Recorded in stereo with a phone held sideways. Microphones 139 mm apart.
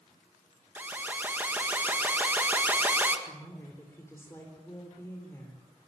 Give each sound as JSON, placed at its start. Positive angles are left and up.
{"t": 0.8, "sound": "an alarm", "side_deg": -15, "distance_m": 2.0}
{"t": 3.3, "sound": "a woman speaking", "side_deg": 20, "distance_m": 4.0}